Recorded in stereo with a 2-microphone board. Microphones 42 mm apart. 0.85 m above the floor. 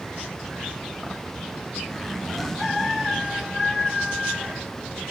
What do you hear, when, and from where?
1.9 s a zipper: 10° left (ahead or behind), 2 m